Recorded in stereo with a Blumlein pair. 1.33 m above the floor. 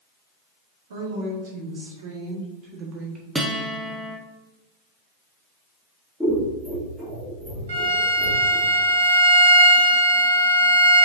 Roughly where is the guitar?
Ahead.